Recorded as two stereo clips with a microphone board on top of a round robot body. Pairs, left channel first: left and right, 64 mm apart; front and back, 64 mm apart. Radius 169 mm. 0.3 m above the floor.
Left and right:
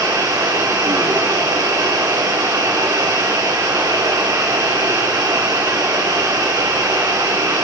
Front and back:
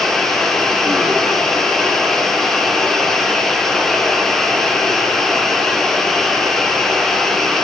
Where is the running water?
85° right, 4 m.